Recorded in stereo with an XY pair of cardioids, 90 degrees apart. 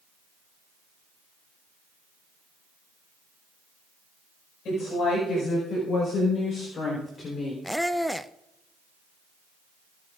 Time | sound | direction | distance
4.7 | a woman speaking | 70° left | 5.5 m
7.6 | a squeak | 5° left | 0.6 m